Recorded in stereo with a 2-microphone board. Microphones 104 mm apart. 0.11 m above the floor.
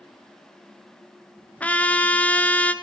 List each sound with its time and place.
1.6 s a trumpet: 15° left (ahead or behind), 0.7 m